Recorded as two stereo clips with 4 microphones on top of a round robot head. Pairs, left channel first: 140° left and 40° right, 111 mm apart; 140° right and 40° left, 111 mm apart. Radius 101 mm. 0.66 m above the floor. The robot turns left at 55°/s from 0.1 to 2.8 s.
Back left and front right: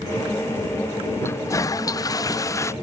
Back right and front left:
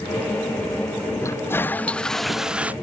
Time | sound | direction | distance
1.2 | a toilet flushing | 175° right | ?